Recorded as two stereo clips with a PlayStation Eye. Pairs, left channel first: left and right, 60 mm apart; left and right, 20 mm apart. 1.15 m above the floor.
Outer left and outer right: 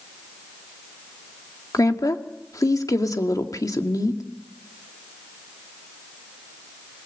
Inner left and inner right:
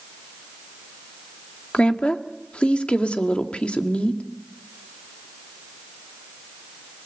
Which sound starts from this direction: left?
A woman speaking, at 1.7 s.